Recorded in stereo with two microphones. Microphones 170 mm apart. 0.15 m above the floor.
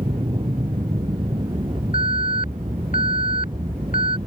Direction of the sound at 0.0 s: 30° right (ahead or behind).